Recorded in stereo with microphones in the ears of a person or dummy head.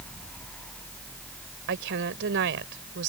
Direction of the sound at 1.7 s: 75° right (ahead or behind).